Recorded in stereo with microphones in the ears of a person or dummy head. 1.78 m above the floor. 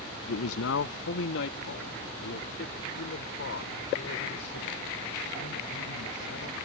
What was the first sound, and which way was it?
A man speaking, 75° left (ahead or behind).